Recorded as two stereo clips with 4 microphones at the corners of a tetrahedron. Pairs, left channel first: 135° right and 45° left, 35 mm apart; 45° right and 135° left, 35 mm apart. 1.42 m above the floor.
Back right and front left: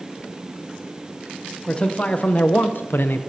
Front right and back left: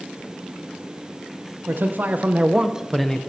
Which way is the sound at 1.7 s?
160° left.